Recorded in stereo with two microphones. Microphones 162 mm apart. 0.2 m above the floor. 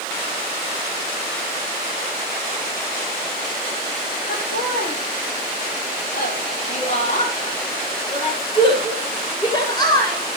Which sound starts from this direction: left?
Laughter, at 4.3 s.